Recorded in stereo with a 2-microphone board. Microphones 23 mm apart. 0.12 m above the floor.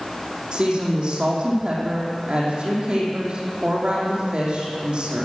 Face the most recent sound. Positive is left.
turn(degrees=-45)  # may be behind; listen again after turning